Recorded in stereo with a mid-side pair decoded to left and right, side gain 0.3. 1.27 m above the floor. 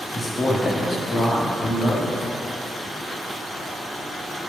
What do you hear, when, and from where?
0.1 s a man speaking: 50° left, 1.9 m